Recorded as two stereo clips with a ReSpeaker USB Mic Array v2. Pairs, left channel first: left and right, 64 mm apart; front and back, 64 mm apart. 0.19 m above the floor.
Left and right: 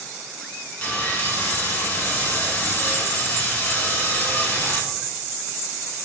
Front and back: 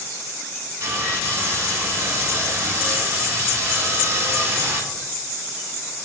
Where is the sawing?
155° left, 0.8 m.